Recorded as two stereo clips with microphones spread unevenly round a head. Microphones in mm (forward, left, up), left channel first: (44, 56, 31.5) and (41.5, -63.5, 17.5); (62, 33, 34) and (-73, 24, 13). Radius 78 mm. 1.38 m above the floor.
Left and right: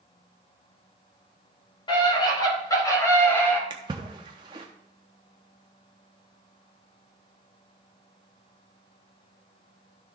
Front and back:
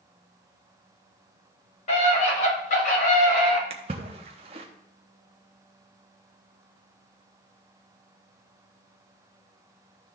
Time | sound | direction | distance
1.9 | a scream | 40° left | 5.5 m
3.7 | a splash | 140° right | 0.9 m